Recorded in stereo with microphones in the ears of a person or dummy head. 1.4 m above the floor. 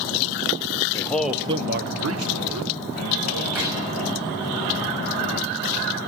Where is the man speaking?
15° left (ahead or behind), 1.2 m; by 3.5 s 70° right (ahead or behind), 3 m.